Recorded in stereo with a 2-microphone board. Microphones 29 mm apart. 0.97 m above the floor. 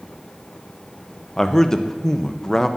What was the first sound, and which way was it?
A man speaking, 15° left (ahead or behind).